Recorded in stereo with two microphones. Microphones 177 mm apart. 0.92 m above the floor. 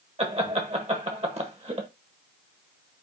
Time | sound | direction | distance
0.2 | laughter | 35° right (ahead or behind) | 1.1 m